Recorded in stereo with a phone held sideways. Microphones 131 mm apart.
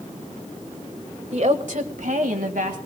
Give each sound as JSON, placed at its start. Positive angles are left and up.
{"t": 1.3, "sound": "a woman speaking", "side_deg": -55, "distance_m": 1.5}